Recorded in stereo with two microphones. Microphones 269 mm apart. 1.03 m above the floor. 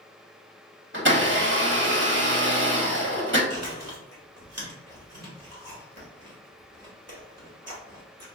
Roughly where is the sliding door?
No sliding door in this recording.